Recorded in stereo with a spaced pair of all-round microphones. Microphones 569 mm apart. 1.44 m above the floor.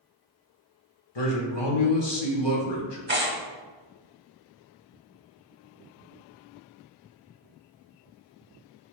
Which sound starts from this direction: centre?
Tearing paper, at 3.1 s.